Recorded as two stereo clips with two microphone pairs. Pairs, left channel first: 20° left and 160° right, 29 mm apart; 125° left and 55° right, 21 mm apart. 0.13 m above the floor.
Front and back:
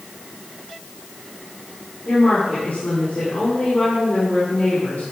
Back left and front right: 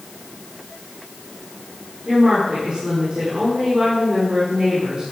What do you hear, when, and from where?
2.0 s a woman speaking: 5° right, 6 m